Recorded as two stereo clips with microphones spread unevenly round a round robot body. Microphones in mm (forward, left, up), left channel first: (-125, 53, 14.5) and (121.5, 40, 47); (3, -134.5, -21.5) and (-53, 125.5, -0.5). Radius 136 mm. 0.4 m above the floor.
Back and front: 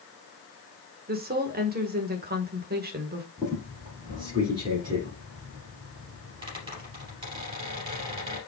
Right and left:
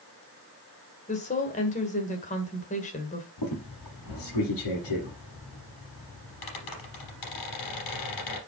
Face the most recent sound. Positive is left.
turn(degrees=-75)